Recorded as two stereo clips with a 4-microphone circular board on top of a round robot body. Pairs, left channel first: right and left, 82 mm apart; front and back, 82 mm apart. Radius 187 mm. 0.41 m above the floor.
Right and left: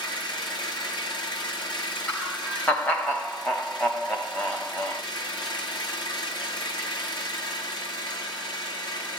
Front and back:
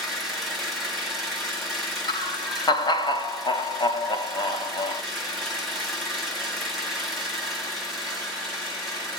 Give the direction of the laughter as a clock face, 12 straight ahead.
1 o'clock.